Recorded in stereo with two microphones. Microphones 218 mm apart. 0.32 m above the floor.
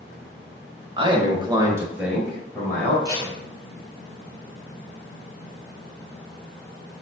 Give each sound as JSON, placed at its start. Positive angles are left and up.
{"t": 1.0, "sound": "a man speaking", "side_deg": -25, "distance_m": 1.2}
{"t": 3.0, "sound": "tape being pulled", "side_deg": -15, "distance_m": 1.7}